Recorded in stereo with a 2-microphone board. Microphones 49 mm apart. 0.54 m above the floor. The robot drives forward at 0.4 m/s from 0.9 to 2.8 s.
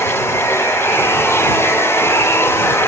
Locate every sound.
0.0 s running water: 70° left (ahead or behind), 3 m; by 2.9 s 80° left, 3 m